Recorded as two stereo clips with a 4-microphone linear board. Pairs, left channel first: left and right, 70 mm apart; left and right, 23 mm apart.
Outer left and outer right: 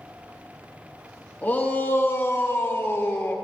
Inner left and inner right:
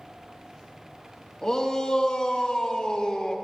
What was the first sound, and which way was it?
A shout, 25° left (ahead or behind).